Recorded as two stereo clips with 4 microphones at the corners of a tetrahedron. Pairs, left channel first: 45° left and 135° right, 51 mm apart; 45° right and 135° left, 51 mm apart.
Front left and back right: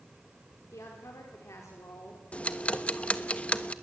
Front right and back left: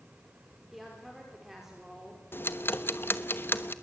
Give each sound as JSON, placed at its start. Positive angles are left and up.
{"t": 0.7, "sound": "a woman speaking", "azimuth_deg": 50, "distance_m": 4.5}
{"t": 2.3, "sound": "ticking", "azimuth_deg": -15, "distance_m": 1.1}